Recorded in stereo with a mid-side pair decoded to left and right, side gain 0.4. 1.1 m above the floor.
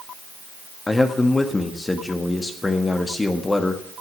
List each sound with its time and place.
0.9 s a man speaking: 25° left, 1.7 m